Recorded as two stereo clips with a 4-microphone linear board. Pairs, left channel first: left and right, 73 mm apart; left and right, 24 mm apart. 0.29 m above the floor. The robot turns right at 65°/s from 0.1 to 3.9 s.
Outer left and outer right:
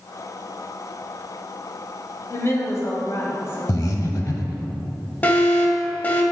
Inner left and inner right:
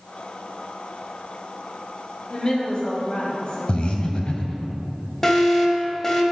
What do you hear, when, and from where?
2.3 s a woman speaking: 45° left, 1.8 m; by 4.7 s 150° left, 1.8 m
3.7 s breathing: 50° left (ahead or behind), 0.8 m
5.2 s an alarm: 25° left (ahead or behind), 1.0 m